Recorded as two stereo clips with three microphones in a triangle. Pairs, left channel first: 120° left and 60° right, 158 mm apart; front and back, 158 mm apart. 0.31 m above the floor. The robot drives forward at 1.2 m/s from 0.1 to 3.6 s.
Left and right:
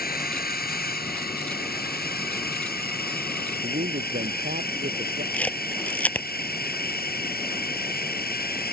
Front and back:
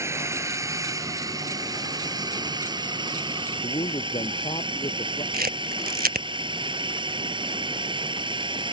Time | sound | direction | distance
0.0 | a drone | 110° left | ?
3.6 | a man speaking | 50° right | ?
5.3 | a camera shutter | 160° right | ?